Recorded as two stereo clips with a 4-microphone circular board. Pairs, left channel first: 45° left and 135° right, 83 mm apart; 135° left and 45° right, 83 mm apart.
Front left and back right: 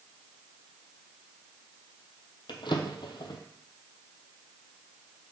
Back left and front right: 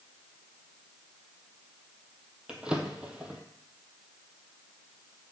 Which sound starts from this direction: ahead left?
A drawer, at 2.5 s.